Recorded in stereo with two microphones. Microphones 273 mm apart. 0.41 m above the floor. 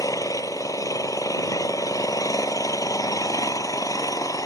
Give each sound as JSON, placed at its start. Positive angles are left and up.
{"t": 0.0, "sound": "an engine running", "side_deg": 10}